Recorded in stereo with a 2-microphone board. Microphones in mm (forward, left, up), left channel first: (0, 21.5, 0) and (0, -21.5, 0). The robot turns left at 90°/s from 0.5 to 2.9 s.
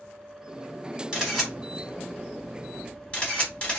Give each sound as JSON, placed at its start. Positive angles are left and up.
{"t": 1.1, "sound": "a camera shutter", "side_deg": -15, "distance_m": 1.8}